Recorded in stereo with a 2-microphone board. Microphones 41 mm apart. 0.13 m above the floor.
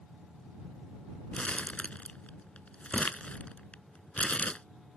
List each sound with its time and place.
1.3 s crumpling: 35° left (ahead or behind)